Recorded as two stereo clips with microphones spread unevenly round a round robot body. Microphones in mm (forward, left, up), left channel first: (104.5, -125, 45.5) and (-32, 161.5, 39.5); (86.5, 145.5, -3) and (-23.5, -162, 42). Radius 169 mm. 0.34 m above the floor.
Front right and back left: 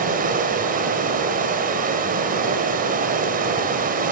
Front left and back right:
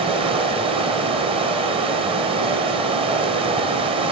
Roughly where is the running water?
Behind.